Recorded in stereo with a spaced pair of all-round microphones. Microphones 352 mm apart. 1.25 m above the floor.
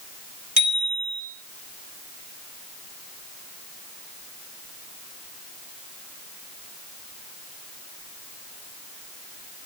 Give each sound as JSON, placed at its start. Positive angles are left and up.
{"t": 0.6, "sound": "a bicycle bell", "side_deg": 70, "distance_m": 4.0}